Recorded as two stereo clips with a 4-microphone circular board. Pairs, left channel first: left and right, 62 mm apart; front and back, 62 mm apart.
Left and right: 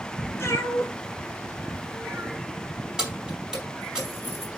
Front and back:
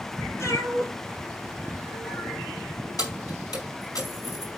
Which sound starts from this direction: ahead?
Keys jangling, at 3.0 s.